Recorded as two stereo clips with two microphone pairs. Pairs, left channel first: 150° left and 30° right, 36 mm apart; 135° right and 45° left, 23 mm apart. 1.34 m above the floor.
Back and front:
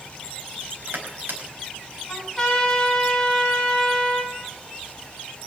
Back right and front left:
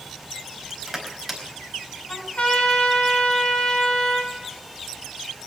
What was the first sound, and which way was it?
Crushing, 50° right.